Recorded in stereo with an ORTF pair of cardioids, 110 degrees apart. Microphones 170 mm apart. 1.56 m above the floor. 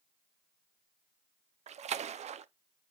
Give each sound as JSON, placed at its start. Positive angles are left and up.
{"t": 1.7, "sound": "a splash", "azimuth_deg": -40, "distance_m": 0.7}